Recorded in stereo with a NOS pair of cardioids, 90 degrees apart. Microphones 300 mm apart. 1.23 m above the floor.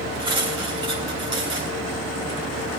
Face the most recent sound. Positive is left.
turn(degrees=-15)